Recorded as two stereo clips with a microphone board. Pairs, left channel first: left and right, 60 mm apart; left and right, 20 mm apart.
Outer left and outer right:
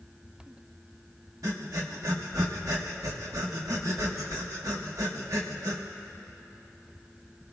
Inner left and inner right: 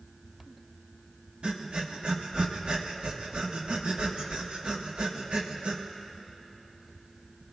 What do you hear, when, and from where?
1.4 s breathing: 65° right (ahead or behind), 1.1 m